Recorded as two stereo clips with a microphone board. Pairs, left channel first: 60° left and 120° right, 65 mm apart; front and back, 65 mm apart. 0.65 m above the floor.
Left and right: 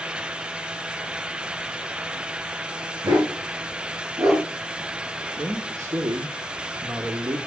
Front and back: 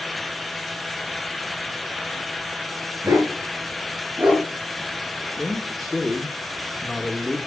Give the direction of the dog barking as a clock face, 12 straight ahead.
5 o'clock.